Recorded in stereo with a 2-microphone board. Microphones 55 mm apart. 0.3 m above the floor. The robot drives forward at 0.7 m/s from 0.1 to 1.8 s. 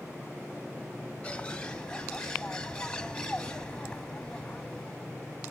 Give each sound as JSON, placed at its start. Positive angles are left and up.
{"t": 1.2, "sound": "a bird", "side_deg": 25, "distance_m": 0.6}